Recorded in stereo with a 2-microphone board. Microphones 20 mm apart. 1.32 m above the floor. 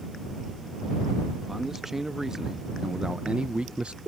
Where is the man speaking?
10° right (ahead or behind); by 4.0 s 80° right.